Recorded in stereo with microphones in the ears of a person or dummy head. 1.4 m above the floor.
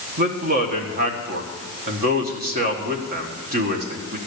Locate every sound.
0.2 s a man speaking: 45° right (ahead or behind), 1.4 m